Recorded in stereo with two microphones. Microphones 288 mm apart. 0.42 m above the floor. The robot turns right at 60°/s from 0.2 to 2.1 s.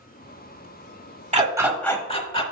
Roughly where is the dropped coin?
No dropped coin in this recording.